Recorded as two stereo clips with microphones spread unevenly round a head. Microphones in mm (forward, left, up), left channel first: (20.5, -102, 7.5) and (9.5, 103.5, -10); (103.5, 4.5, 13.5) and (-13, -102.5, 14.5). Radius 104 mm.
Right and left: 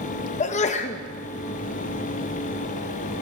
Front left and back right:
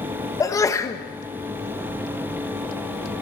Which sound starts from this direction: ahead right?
A sneeze, at 0.4 s.